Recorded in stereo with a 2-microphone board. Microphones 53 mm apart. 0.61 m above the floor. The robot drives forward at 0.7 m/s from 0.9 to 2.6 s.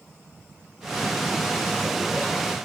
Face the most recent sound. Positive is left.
No sound to turn to.